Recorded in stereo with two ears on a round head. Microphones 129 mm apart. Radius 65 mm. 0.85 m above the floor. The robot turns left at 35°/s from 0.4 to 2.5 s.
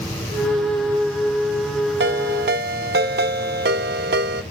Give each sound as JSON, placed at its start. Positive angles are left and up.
{"t": 2.0, "sound": "a ringtone", "side_deg": -80, "distance_m": 0.8}